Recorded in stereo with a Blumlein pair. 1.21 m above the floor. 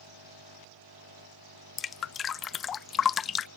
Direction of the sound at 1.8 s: 20° left.